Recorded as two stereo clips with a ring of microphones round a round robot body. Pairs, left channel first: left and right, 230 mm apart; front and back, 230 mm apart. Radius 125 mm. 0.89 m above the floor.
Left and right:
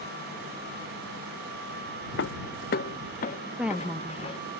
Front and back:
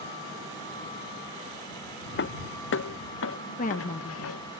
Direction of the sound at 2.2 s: 40° left.